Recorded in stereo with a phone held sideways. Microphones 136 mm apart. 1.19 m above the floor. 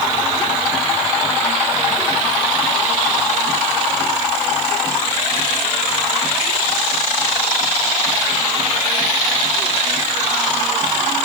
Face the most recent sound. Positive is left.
No sound to turn to.